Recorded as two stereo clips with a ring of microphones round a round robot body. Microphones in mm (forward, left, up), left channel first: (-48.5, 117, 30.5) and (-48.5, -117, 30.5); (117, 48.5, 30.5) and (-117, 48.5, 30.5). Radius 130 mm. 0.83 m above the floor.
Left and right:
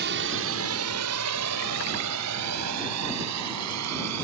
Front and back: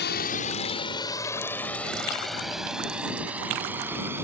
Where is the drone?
45° right; by 4.2 s 100° right.